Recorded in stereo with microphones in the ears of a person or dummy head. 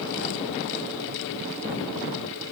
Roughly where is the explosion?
I don't hear an explosion.